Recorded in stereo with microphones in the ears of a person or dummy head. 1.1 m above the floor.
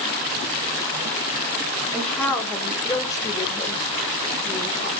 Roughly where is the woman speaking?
Centre.